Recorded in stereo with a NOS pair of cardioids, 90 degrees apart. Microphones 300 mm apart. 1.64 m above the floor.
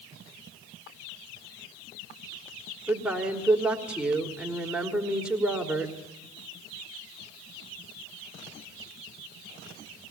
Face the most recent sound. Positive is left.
turn(degrees=-5)